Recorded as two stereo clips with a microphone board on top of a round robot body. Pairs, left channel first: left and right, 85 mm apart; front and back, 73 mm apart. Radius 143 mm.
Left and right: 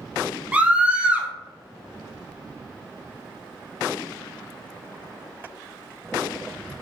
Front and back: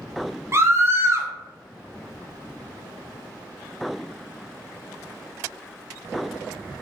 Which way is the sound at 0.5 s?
155° right.